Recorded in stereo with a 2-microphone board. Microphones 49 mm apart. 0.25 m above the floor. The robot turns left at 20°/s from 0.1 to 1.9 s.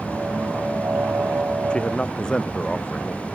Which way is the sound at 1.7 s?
20° left (ahead or behind).